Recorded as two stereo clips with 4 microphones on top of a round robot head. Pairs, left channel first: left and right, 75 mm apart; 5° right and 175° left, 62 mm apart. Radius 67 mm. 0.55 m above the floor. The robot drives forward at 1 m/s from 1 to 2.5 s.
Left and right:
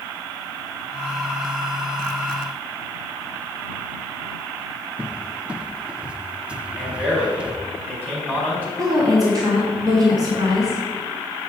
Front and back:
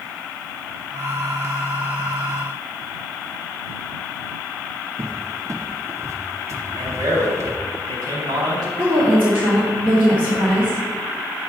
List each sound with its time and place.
5.0 s a cupboard door: 165° right, 0.9 m
6.8 s a man speaking: 160° right, 4.5 m
8.8 s a woman speaking: 125° right, 2.5 m